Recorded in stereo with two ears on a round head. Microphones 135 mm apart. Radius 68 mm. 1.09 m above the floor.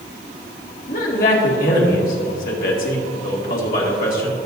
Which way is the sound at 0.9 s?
55° left (ahead or behind).